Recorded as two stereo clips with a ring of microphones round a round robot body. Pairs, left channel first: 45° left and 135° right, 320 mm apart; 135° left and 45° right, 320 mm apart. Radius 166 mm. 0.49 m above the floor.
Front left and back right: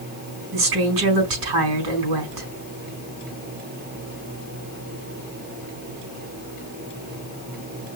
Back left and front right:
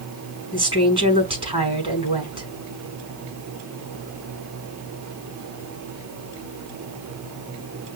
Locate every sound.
0.5 s a woman speaking: 120° right, 4.5 m